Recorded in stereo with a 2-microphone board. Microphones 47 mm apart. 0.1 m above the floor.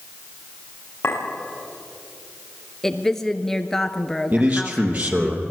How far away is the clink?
About 9.5 m.